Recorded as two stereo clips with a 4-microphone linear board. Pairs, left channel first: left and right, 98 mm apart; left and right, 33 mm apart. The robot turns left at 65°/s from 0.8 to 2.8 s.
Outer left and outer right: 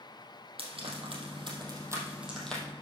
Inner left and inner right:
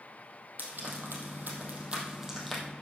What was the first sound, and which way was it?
Frying, 70° right (ahead or behind).